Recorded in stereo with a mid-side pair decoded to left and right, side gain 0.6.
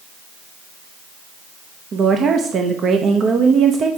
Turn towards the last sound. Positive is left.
turn(degrees=-40)